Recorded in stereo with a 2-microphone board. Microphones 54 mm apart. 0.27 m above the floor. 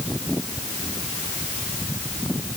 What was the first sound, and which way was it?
Only background noise.